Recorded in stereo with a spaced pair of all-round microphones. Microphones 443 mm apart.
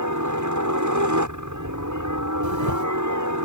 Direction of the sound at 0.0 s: 40° right (ahead or behind).